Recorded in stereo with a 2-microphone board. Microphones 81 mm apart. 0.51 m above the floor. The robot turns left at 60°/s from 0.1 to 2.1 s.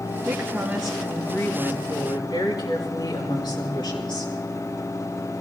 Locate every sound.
0.2 s a woman speaking: 140° right, 5.5 m; by 4.3 s 110° left, 5.5 m